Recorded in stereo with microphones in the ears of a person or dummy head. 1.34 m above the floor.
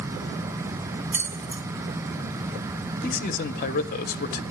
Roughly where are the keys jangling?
Centre.